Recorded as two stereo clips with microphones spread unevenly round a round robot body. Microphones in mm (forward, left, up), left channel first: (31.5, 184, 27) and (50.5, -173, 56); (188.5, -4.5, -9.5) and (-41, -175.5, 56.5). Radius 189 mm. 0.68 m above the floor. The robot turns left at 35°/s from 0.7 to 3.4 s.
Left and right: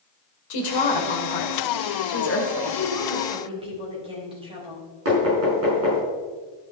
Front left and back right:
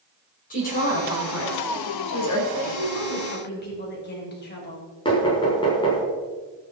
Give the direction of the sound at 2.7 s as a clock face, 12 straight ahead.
12 o'clock.